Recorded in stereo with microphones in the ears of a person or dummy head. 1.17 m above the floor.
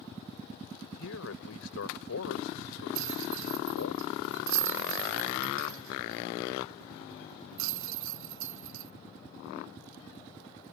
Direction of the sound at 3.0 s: 75° right (ahead or behind).